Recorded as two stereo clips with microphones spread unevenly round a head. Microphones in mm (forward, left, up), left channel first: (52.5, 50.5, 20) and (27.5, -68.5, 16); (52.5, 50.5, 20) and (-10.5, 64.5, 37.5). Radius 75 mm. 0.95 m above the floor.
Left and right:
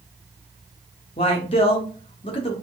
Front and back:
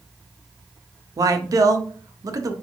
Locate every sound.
1.2 s a man speaking: 135° left, 0.7 m